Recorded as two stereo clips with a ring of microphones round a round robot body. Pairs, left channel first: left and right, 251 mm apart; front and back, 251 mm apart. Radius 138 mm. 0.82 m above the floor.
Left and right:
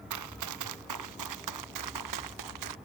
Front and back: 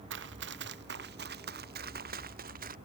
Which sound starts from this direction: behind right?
Running footsteps, at 0.1 s.